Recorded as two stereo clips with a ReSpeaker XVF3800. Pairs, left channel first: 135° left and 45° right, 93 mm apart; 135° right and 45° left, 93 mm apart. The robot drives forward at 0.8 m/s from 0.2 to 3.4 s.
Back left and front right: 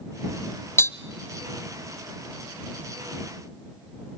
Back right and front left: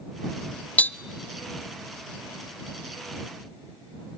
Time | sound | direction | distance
0.8 | tapping | 165° left | 0.6 m